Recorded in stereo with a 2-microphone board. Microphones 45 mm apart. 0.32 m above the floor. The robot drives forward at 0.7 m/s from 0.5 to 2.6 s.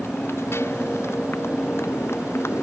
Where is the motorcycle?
70° left (ahead or behind); by 2.6 s 80° left.